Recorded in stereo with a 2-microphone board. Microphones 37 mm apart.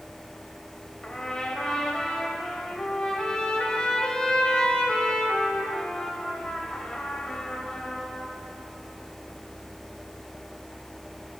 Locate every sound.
1.0 s a trumpet: 20° left (ahead or behind), 0.8 m